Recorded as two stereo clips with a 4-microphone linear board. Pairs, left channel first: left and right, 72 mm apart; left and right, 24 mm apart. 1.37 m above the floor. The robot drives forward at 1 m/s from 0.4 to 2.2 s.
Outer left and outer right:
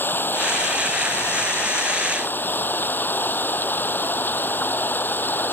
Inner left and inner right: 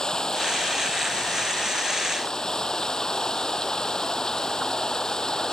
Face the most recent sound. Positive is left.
turn(degrees=30)  # may be behind; listen again after turning